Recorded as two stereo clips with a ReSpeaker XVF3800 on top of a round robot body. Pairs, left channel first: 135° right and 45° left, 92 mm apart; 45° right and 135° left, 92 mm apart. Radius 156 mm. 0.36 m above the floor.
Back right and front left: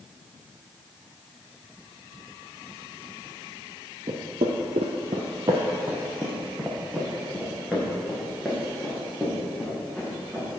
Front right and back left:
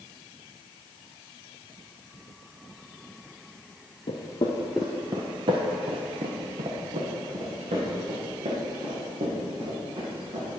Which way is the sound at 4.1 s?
10° right.